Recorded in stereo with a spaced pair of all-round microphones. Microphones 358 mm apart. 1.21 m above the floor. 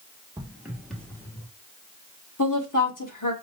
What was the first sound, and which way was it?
Footsteps, 15° right (ahead or behind).